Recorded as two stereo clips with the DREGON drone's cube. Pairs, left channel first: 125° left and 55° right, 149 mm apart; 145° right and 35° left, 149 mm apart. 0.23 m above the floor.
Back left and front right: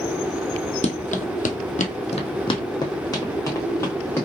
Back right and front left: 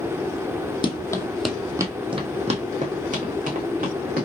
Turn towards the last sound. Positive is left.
turn(degrees=50)